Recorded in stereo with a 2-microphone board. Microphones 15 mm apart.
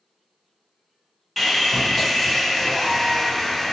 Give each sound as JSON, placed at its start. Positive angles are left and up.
{"t": 1.4, "sound": "sawing", "side_deg": 10, "distance_m": 1.3}